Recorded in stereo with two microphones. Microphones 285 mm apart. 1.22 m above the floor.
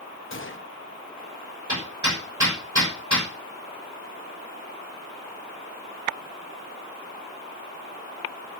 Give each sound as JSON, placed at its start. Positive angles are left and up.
{"t": 0.3, "sound": "a gunshot", "side_deg": 45, "distance_m": 0.9}
{"t": 1.7, "sound": "hammering", "side_deg": -80, "distance_m": 5.5}